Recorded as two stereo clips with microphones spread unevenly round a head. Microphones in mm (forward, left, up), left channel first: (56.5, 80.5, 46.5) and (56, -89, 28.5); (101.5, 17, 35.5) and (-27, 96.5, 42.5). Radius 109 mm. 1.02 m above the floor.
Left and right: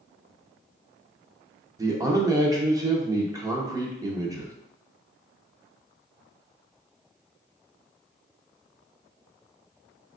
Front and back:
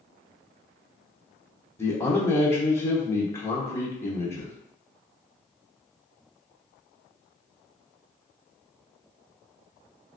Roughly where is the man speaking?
Right.